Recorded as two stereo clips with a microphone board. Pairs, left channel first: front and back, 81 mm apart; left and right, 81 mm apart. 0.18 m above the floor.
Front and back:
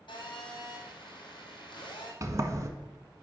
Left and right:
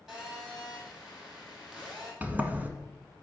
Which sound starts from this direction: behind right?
A sliding door, at 2.2 s.